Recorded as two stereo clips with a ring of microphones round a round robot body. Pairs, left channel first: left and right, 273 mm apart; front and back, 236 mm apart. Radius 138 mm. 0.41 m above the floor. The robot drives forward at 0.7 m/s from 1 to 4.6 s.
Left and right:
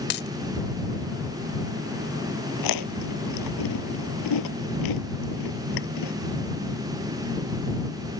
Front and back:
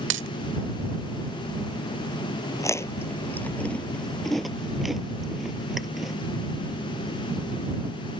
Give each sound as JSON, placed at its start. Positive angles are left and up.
{"t": 0.1, "sound": "a dropped coin", "azimuth_deg": 145}
{"t": 2.6, "sound": "chewing", "azimuth_deg": 75}